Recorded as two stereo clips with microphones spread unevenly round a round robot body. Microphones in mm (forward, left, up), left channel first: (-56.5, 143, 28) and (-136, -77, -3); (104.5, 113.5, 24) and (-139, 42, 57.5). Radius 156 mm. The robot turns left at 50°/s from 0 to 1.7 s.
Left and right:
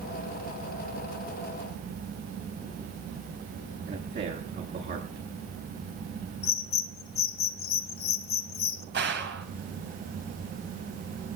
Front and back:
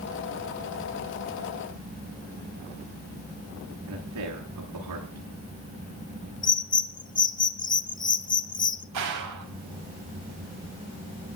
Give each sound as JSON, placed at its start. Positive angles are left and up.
{"t": 3.9, "sound": "a man speaking", "azimuth_deg": -150, "distance_m": 10.0}
{"t": 6.4, "sound": "a bird", "azimuth_deg": 55, "distance_m": 1.5}
{"t": 8.9, "sound": "a gunshot", "azimuth_deg": -150, "distance_m": 3.5}